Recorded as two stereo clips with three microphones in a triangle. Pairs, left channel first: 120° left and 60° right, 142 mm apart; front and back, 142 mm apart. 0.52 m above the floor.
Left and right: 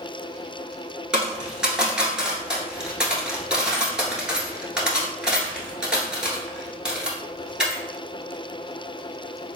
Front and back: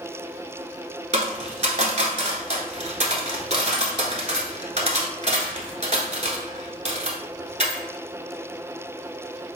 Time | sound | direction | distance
1.1 | a dropped coin | 145° right | 1.0 m